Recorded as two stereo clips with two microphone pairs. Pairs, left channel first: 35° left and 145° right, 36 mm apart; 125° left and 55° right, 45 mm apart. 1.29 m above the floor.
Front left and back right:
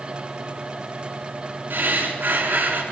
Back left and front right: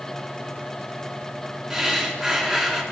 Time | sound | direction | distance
1.7 | breathing | 140° right | 3 m